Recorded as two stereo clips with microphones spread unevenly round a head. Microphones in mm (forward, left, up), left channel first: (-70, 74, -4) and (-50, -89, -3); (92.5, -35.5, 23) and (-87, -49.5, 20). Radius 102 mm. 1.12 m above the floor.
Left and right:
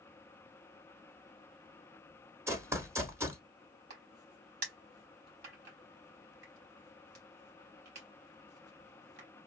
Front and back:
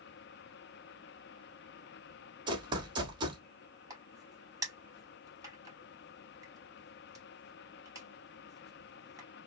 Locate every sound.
2.5 s running footsteps: 140° right, 1.2 m
3.9 s a crack: 105° right, 4 m